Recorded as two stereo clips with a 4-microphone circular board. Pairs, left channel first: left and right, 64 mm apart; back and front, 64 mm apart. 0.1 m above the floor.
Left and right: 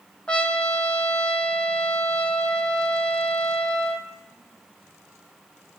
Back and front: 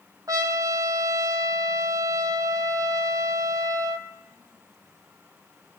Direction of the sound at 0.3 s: 20° left.